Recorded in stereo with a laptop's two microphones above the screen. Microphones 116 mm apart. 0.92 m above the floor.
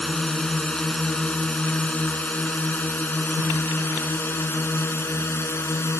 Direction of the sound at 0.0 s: 5° left (ahead or behind).